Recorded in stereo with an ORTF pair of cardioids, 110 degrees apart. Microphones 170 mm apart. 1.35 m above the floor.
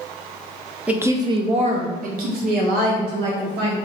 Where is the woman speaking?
5° right, 0.7 m; by 3.8 s 80° right, 1.6 m.